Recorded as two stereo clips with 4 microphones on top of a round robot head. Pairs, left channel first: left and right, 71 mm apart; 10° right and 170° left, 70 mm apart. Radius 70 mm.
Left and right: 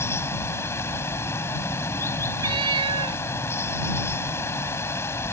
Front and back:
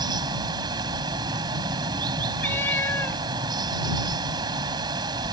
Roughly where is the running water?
Behind left.